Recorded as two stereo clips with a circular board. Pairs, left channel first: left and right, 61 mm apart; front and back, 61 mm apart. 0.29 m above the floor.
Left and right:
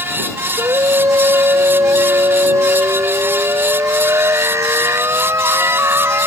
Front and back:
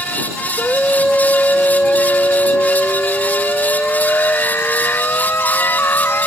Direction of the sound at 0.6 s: 70° right.